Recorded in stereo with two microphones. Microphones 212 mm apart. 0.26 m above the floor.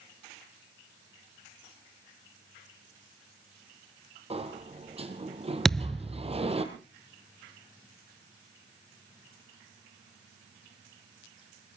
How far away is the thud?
About 0.8 m.